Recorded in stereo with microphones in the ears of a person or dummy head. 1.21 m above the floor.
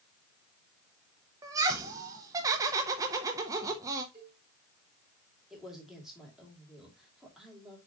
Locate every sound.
1.4 s laughter: 15° right (ahead or behind), 0.7 m
4.1 s a cowbell: 15° right (ahead or behind), 4 m
5.5 s a man speaking: centre (ahead or behind), 2.5 m